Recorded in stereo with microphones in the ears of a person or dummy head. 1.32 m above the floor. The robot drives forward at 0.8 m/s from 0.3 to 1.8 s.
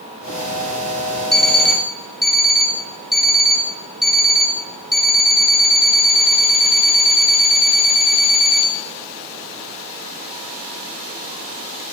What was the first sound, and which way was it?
An alarm clock, 10° left (ahead or behind).